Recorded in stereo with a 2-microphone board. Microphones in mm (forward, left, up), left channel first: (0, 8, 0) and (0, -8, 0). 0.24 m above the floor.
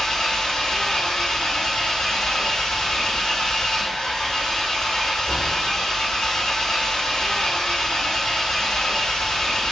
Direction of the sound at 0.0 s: 65° left (ahead or behind).